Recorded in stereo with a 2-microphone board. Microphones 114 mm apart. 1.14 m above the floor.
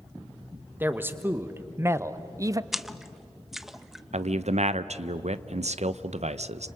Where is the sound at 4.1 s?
75° right (ahead or behind), 0.7 m.